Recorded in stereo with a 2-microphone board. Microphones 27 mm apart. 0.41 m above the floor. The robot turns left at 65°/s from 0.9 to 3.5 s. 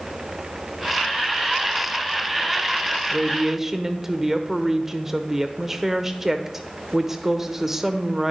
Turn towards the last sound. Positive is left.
turn(degrees=-15)  # may be behind; listen again after turning